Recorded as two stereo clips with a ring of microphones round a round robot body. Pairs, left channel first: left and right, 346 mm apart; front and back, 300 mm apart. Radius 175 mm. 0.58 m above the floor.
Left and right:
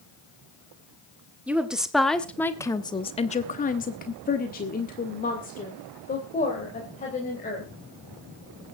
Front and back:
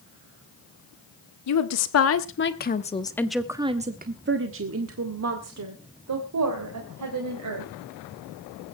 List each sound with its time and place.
1.5 s a woman speaking: 5° right, 1.7 m; by 7.7 s 160° left, 4 m